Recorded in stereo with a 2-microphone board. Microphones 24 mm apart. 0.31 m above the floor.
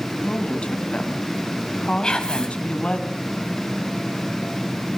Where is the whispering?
35° left (ahead or behind), 2 m.